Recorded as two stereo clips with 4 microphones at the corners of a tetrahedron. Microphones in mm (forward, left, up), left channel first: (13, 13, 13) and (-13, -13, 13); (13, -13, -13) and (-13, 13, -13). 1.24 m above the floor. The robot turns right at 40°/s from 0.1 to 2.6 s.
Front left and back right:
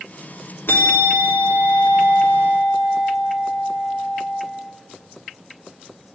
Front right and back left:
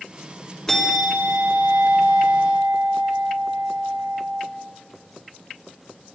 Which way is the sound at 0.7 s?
30° left.